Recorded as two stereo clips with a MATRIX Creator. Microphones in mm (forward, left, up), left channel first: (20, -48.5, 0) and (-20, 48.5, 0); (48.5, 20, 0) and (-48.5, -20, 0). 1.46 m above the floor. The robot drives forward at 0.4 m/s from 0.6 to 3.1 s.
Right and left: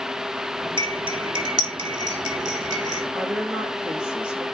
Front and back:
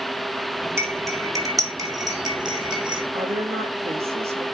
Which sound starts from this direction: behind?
A woman speaking, at 3.1 s.